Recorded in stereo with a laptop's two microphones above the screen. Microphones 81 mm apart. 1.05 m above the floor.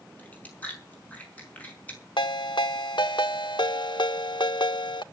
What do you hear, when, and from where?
0.2 s chewing: 20° left (ahead or behind), 5.5 m
2.2 s a ringtone: 75° left (ahead or behind), 1.3 m